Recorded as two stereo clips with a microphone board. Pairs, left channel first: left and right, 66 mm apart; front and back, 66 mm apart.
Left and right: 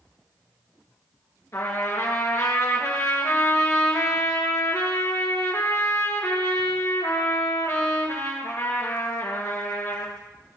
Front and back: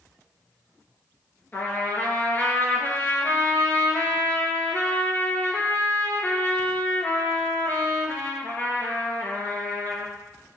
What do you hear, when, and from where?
1.5 s a trumpet: 55° left, 2 m